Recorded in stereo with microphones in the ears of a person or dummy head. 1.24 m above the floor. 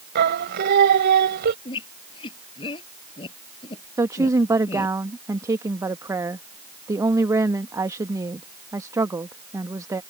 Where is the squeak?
30° left (ahead or behind).